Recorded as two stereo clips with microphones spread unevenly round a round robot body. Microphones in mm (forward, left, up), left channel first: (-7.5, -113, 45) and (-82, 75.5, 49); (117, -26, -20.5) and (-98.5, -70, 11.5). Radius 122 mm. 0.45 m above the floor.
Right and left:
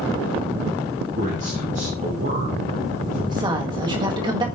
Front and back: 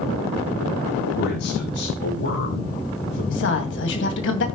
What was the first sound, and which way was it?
A man speaking, 55° left.